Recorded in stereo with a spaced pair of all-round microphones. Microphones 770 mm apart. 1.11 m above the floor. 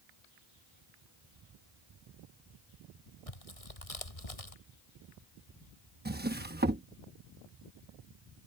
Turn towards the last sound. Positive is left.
turn(degrees=-15)  # may be behind; listen again after turning